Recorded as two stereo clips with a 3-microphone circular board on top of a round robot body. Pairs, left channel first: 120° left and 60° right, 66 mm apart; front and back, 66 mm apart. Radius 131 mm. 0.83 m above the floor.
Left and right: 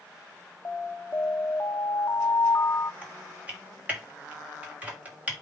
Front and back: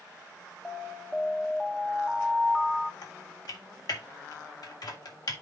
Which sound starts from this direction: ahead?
Typing on a keyboard, at 3.0 s.